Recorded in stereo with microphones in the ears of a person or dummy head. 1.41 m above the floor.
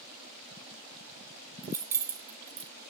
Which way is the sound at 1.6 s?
15° right (ahead or behind).